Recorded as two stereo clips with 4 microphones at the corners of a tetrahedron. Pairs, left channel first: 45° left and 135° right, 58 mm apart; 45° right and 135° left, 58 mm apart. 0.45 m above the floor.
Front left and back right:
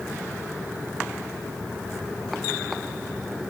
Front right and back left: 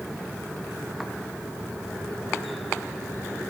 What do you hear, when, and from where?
Only background noise.